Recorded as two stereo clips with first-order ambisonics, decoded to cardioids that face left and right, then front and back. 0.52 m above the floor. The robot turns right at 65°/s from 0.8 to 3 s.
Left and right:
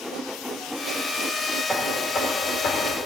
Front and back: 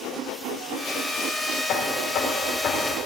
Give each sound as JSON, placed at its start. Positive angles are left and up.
{"t": 1.7, "sound": "knocking", "azimuth_deg": -10, "distance_m": 1.5}